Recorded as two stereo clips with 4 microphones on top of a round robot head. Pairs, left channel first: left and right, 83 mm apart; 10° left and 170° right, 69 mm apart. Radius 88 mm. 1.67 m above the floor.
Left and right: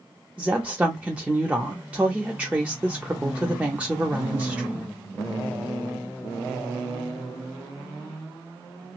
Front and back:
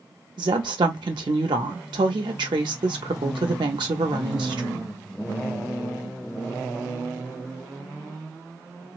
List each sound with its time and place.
0.4 s a woman speaking: 165° right, 0.6 m